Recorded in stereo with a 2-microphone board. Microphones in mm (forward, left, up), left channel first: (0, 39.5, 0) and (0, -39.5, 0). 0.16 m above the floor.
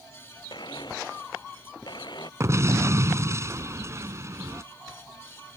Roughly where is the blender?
Left.